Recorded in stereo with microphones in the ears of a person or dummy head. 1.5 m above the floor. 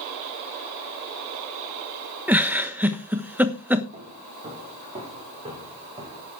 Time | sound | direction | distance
2.3 | a giggle | 5° right (ahead or behind) | 1.1 m
3.9 | footsteps | 35° right (ahead or behind) | 6 m